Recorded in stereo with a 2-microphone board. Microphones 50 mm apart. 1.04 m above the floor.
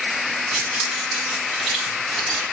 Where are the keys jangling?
5° right (ahead or behind), 3.5 m; by 2.4 s 5° left (ahead or behind), 6 m.